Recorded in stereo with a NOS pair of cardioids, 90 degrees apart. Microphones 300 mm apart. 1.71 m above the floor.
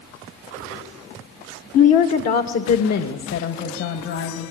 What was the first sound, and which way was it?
A woman speaking, 60° left.